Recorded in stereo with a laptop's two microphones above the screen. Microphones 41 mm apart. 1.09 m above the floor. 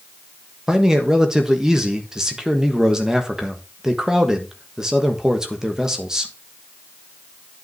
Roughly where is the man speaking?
Centre.